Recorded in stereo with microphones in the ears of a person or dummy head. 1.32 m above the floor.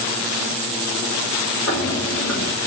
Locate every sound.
1.7 s footsteps: 65° left (ahead or behind), 4.5 m